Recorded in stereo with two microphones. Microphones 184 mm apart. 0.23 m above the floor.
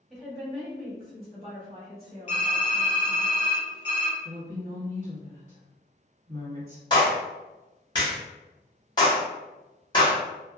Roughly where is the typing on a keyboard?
Left.